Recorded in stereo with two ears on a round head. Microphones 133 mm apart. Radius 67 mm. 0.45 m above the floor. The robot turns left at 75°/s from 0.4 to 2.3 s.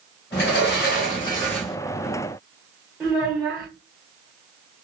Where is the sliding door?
95° left, 1.4 m; by 1.8 s 10° right, 1.4 m.